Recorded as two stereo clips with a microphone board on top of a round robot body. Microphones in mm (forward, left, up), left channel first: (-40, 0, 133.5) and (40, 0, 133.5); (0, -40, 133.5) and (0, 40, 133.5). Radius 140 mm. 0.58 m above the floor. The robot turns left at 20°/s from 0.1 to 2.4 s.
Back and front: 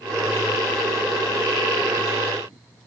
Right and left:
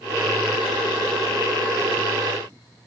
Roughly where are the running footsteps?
No running footsteps in this recording.